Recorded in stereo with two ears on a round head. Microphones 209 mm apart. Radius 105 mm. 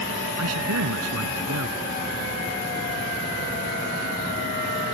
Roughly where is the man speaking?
Right.